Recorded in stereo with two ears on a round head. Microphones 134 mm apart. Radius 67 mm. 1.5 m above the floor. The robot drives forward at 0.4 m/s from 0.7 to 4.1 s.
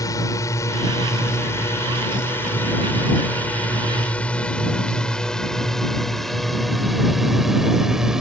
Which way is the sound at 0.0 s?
25° left (ahead or behind).